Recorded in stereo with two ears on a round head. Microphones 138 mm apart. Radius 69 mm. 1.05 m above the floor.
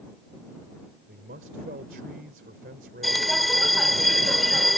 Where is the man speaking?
60° right (ahead or behind).